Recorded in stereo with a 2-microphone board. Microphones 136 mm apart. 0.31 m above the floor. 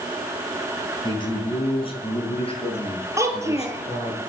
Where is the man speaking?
35° left (ahead or behind), 4 m; by 4.2 s 50° left (ahead or behind), 6 m.